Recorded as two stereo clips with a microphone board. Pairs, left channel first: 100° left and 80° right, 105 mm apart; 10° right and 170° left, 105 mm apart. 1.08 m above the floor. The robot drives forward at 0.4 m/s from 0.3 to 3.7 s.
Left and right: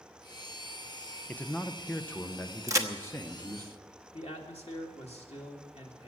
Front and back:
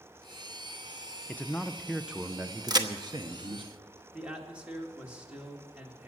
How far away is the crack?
About 1.0 m.